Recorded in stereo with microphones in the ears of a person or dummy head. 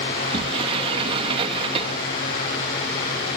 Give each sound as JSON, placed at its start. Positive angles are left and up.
{"t": 0.1, "sound": "a sliding door", "side_deg": -30}